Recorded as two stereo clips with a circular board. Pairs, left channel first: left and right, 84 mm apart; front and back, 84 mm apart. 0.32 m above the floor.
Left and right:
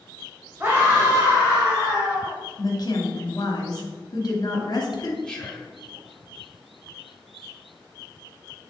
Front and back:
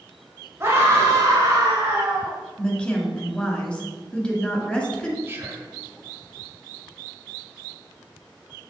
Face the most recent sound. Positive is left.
turn(degrees=160)